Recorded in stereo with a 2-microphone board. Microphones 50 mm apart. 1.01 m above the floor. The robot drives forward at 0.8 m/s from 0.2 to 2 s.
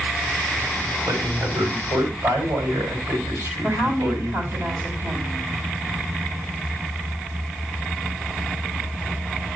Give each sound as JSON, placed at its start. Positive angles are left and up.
{"t": 1.1, "sound": "a man speaking", "side_deg": -70, "distance_m": 5.5}
{"t": 3.6, "sound": "a woman speaking", "side_deg": -50, "distance_m": 6.0}